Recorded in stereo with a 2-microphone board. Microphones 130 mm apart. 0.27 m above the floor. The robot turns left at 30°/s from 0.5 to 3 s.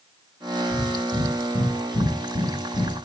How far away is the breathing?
About 1.9 m.